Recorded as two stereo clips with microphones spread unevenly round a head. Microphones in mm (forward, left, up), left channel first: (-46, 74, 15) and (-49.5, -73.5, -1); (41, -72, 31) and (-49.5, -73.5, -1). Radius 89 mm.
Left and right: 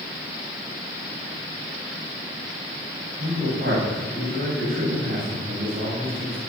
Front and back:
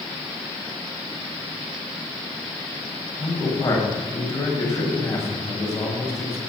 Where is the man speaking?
50° right, 7.5 m.